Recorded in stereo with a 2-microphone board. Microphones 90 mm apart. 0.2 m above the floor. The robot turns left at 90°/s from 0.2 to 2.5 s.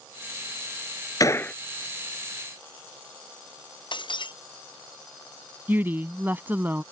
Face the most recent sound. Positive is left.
turn(degrees=-20)  # may be behind; listen again after turning